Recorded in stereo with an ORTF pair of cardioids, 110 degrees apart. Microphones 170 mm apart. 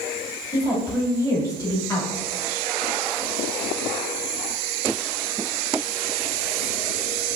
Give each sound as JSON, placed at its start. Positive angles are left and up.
{"t": 0.5, "sound": "a woman speaking", "azimuth_deg": 20, "distance_m": 1.7}